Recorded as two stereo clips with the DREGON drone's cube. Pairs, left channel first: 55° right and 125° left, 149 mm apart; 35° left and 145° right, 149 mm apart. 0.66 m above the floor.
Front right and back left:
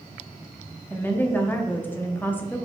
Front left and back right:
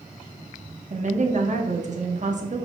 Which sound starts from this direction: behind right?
A woman speaking, at 0.9 s.